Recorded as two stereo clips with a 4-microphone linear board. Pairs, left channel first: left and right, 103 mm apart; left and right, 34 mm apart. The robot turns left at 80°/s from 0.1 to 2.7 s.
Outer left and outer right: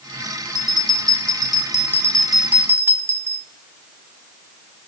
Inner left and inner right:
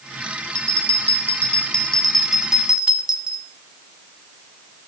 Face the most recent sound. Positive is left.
turn(degrees=-35)